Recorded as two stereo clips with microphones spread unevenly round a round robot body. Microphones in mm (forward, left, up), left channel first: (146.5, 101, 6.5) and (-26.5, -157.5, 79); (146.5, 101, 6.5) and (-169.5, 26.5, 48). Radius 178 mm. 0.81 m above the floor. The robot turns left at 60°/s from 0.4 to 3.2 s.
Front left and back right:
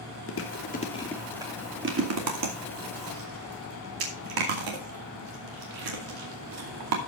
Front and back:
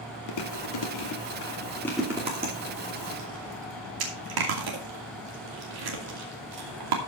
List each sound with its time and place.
0.3 s chewing: 20° left, 2.5 m; by 7.0 s 145° right, 2.5 m